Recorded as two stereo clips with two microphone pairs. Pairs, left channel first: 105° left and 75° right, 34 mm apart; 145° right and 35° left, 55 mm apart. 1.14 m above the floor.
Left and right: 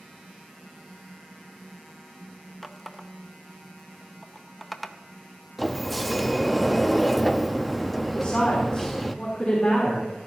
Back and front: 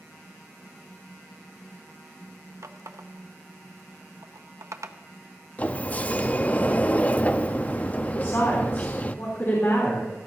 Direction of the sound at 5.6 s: 170° right.